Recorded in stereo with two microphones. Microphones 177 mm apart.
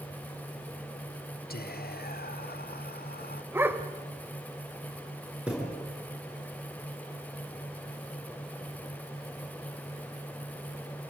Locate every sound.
1.5 s whispering: 60° left (ahead or behind), 0.7 m
3.5 s a dog barking: 10° right (ahead or behind), 1.5 m
5.5 s a thud: 5° right (ahead or behind), 7.5 m